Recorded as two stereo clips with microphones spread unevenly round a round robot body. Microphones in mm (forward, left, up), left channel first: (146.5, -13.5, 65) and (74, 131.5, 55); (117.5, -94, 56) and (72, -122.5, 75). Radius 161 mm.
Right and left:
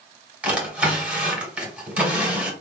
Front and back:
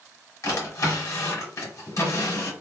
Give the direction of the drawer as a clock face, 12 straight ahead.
11 o'clock.